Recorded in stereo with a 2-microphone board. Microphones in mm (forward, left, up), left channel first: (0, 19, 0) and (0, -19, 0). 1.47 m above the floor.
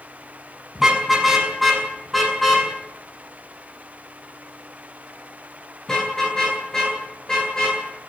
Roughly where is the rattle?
No rattle in this recording.